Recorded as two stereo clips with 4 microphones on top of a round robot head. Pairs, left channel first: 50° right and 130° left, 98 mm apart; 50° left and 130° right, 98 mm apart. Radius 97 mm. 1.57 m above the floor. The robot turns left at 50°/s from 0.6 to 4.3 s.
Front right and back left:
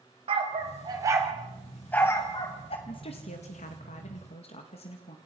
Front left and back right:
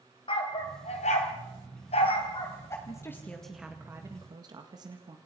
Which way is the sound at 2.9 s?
5° right.